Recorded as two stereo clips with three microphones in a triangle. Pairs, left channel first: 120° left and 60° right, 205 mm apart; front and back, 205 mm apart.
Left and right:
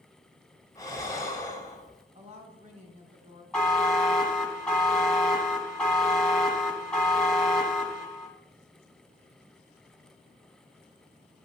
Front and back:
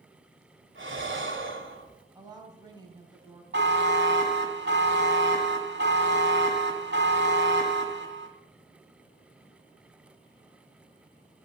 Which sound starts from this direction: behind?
Breathing, at 0.8 s.